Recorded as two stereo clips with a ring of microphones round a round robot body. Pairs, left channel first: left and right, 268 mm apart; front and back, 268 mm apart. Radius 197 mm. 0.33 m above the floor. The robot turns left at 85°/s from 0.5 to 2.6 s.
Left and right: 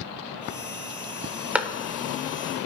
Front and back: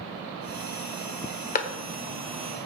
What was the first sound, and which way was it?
A clap, 10° right.